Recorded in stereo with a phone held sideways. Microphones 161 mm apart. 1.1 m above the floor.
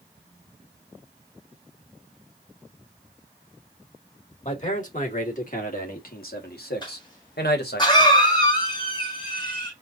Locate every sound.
4.5 s a man speaking: 45° left (ahead or behind), 2.5 m; by 7.8 s 85° left, 1.6 m
6.8 s a cough: 25° left (ahead or behind), 1.8 m